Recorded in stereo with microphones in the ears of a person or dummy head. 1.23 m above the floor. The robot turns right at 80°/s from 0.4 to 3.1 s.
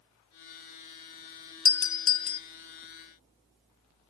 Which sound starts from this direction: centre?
A doorbell, at 1.6 s.